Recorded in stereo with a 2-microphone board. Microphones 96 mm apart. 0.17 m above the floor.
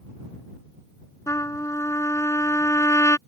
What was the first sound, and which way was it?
A trumpet, 35° left (ahead or behind).